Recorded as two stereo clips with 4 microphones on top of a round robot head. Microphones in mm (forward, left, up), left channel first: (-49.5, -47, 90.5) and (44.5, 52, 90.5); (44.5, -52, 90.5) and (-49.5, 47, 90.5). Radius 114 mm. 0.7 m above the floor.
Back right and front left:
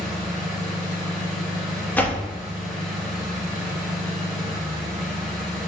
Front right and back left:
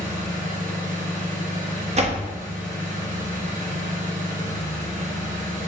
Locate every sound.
0.0 s an engine running: 140° left, 1.8 m
1.9 s a door slam: 150° left, 1.0 m